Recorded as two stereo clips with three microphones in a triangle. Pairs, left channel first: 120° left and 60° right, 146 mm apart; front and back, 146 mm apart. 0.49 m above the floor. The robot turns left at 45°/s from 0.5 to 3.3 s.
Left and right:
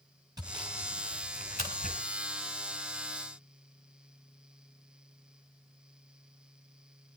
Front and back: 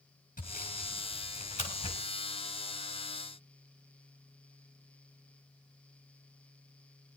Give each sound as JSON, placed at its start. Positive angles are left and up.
{"t": 0.4, "sound": "sawing", "azimuth_deg": 5, "distance_m": 4.5}